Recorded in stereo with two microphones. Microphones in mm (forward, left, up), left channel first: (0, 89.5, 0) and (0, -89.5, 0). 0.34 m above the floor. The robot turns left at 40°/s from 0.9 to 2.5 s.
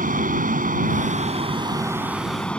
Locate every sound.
0.0 s an aircraft: 120° right; by 2.6 s 175° left